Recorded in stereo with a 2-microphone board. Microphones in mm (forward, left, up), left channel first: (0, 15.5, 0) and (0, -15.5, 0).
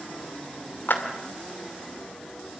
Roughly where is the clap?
Left.